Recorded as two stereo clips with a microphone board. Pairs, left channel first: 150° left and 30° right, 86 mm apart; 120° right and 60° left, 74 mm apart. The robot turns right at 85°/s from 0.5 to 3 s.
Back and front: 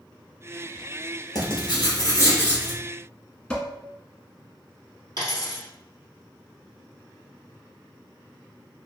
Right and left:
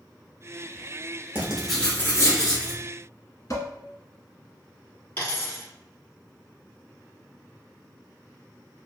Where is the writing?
125° left, 1.1 m; by 2.8 s 115° right, 1.1 m.